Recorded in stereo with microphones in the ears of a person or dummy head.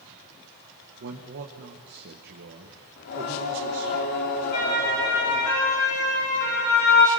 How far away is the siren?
About 7 m.